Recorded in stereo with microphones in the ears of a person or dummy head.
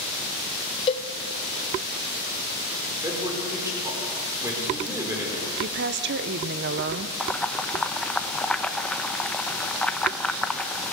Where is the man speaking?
15° right (ahead or behind), 5 m.